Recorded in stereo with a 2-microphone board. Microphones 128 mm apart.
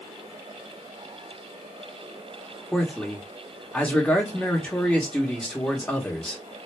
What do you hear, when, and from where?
2.7 s a man speaking: 10° left (ahead or behind), 1.1 m